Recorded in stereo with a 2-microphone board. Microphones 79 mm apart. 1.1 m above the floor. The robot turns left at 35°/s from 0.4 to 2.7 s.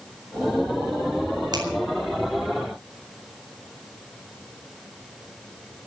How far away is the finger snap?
About 4.5 m.